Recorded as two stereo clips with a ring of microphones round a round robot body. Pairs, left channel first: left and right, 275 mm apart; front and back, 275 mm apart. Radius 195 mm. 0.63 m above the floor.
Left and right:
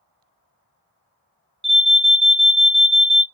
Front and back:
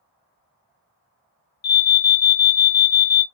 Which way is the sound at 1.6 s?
20° right.